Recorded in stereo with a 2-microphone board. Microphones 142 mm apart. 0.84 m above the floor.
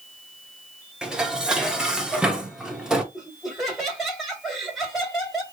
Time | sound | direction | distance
1.0 | dishes clattering | 5° right (ahead or behind) | 1.1 m
3.1 | laughter | centre (ahead or behind) | 3.5 m